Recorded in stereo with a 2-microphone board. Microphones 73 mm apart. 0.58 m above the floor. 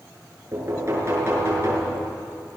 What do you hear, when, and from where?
0.5 s knocking: 35° right (ahead or behind), 7.5 m